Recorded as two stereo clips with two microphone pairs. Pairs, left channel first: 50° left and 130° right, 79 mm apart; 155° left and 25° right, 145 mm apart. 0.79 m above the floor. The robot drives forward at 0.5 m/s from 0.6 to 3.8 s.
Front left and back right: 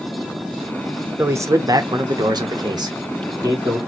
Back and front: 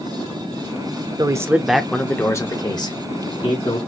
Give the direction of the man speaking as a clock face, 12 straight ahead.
3 o'clock.